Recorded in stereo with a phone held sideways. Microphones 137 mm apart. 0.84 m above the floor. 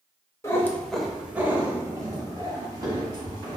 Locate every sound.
0.4 s a cat meowing: 20° left (ahead or behind), 0.6 m; by 3.6 s 35° right (ahead or behind), 1.7 m